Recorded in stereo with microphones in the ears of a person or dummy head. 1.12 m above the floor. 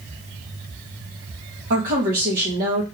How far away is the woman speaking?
About 1.4 m.